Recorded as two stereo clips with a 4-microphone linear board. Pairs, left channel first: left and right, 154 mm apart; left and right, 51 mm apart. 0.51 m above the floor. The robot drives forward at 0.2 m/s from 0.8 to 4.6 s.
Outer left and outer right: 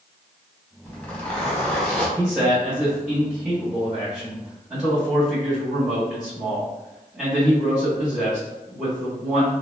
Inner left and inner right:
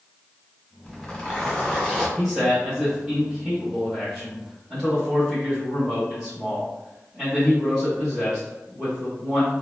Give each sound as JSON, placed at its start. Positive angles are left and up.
{"t": 0.8, "sound": "a zipper", "side_deg": 10, "distance_m": 1.5}
{"t": 2.2, "sound": "a man speaking", "side_deg": -10, "distance_m": 1.0}